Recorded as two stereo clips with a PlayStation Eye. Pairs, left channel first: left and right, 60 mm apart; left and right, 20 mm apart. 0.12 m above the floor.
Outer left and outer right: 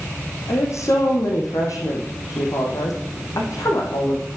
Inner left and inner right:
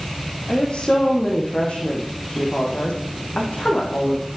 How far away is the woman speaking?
About 4.5 m.